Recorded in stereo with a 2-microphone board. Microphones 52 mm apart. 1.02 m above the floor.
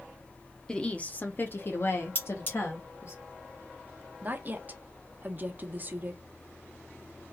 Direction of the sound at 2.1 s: 45° left (ahead or behind).